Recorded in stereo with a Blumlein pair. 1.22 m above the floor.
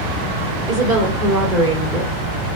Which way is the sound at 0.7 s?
50° right.